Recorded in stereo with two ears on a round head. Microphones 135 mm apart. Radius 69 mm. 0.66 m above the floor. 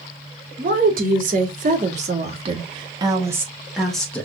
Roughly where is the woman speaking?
Right.